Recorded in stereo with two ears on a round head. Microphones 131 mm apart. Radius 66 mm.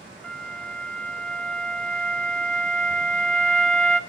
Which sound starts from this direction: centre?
A flute, at 0.2 s.